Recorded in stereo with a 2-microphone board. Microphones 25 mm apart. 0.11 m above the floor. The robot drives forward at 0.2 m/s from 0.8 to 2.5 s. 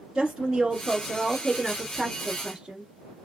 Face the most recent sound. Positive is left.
turn(degrees=-20)  # may be behind; listen again after turning